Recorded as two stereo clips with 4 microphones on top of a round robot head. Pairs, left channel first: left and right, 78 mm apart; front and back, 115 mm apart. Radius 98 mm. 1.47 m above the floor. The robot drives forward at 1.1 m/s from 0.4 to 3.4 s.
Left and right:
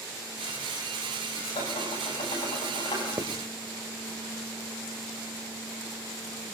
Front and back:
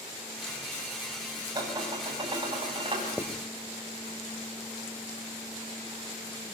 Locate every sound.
1.6 s dishes clattering: 125° left, 7.5 m; by 3.1 s 135° left, 8.5 m
3.2 s writing: 65° right, 1.4 m; by 3.5 s 85° right, 1.3 m